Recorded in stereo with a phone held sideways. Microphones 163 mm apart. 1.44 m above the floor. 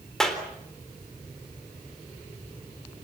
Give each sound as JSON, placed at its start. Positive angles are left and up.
{"t": 0.2, "sound": "a clap", "side_deg": 5, "distance_m": 3.5}